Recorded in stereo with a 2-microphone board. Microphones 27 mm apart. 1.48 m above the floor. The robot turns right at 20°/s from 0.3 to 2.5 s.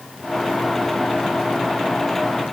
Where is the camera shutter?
No camera shutter in this recording.